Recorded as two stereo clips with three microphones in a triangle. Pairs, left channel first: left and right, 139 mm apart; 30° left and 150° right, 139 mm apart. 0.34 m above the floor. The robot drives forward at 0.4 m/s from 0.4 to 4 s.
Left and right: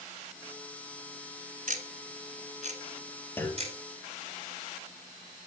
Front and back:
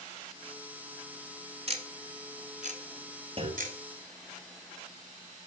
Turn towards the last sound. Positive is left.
turn(degrees=165)